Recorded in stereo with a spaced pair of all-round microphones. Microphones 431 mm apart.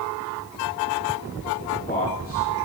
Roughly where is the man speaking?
Left.